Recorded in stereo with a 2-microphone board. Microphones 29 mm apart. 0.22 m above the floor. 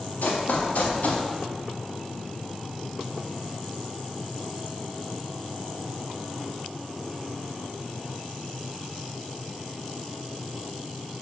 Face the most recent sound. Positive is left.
turn(degrees=60)  # may be behind; listen again after turning